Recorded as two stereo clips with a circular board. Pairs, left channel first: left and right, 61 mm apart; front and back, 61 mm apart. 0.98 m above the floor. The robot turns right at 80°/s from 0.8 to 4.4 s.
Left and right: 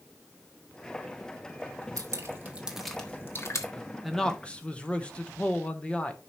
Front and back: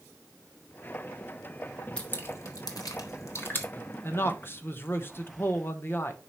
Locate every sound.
2.0 s dripping: 70° right, 1.4 m; by 3.7 s 65° left, 1.4 m
4.0 s a man speaking: 5° right, 1.0 m; by 6.2 s 25° left, 1.0 m